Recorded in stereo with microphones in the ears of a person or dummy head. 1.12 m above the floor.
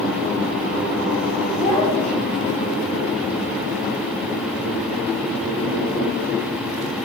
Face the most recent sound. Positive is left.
turn(degrees=30)  # may be behind; listen again after turning